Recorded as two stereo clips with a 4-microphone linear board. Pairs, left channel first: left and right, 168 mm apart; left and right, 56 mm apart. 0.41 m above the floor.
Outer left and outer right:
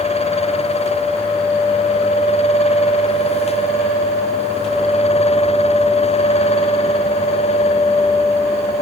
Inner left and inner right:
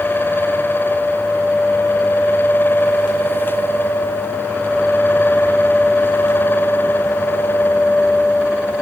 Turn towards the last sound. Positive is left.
No sound to turn to.